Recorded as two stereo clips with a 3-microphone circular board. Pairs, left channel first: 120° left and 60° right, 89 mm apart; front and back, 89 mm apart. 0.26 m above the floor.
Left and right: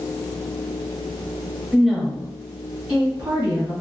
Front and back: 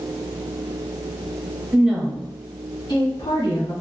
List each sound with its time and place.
1.7 s a woman speaking: 155° right, 1.0 m; by 3.7 s 5° right, 2.5 m